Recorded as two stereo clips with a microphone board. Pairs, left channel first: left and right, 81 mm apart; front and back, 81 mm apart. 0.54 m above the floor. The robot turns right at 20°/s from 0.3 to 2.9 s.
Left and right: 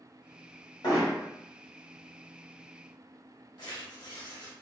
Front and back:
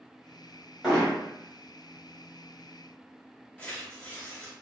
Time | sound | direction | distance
0.8 | hammering | 90° left | 1.5 m
3.6 | tearing paper | 70° left | 1.0 m